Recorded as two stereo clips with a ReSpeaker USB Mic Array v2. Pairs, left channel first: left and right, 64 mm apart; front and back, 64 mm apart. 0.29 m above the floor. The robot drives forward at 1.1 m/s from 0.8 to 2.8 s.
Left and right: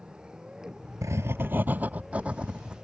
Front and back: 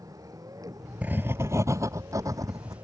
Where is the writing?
120° right; by 2.9 s 165° right.